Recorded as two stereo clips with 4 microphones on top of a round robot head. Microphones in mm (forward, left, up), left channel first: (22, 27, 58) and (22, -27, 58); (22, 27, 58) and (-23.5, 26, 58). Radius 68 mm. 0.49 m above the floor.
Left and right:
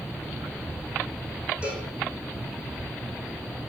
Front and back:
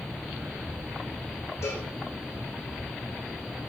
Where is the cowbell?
20° right, 7 m.